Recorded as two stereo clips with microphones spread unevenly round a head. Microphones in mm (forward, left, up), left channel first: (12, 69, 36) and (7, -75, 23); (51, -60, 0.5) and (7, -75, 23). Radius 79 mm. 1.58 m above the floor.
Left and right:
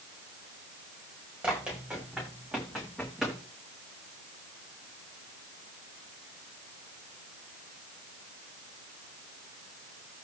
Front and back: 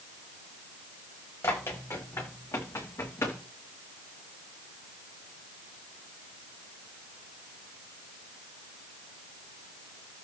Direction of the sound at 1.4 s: 10° right.